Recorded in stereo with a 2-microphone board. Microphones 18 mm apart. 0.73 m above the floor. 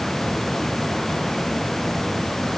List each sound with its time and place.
Only background noise.